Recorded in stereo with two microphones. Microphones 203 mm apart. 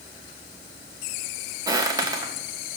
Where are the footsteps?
20° right (ahead or behind), 1.9 m.